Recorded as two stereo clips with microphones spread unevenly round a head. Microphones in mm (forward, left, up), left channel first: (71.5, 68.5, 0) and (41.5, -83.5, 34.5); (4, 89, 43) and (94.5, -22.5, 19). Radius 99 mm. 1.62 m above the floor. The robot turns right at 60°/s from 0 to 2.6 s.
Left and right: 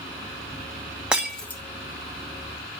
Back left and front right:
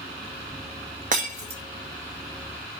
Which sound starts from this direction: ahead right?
Breaking glass, at 1.1 s.